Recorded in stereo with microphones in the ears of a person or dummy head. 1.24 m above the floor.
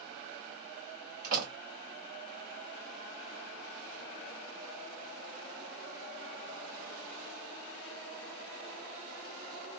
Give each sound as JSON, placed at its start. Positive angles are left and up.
{"t": 1.2, "sound": "a door slam", "side_deg": -55, "distance_m": 1.4}